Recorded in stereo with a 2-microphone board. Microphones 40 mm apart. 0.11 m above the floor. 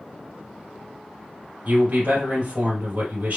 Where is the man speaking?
45° right (ahead or behind), 2.5 m.